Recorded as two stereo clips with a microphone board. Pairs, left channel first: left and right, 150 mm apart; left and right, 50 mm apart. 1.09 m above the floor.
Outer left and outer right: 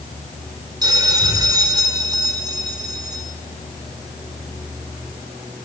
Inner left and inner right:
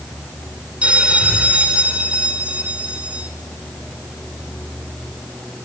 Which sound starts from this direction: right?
A bell, at 0.8 s.